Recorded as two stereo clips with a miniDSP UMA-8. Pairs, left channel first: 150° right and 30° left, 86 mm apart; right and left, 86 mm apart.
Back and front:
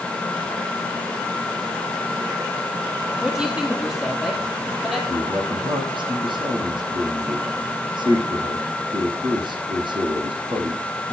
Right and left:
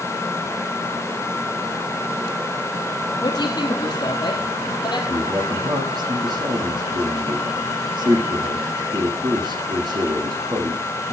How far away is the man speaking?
About 7.5 m.